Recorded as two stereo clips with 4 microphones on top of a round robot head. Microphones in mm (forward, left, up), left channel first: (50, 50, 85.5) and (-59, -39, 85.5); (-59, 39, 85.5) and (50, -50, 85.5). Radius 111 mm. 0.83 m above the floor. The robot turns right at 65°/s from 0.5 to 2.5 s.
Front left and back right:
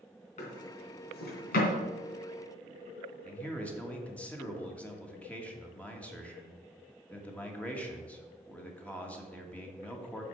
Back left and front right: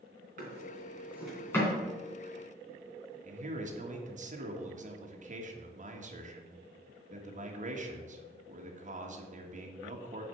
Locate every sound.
0.4 s a drawer: 5° right, 2.5 m; by 1.7 s 75° left, 2.5 m
3.2 s a man speaking: 40° right, 1.7 m